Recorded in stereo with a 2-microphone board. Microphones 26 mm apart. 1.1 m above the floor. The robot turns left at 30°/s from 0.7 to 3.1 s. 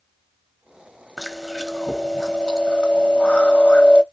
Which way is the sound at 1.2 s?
175° right.